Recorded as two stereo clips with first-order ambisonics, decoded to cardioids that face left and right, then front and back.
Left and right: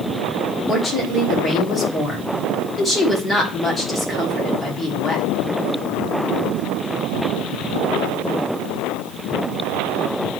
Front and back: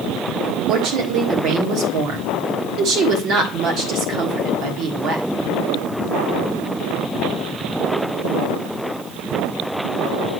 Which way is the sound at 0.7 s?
165° left.